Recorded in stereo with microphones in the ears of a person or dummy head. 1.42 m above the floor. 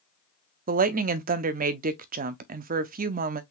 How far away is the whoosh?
No whoosh in this recording.